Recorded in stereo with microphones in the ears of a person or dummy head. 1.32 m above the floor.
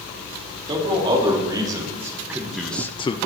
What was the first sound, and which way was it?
A man speaking, 25° right (ahead or behind).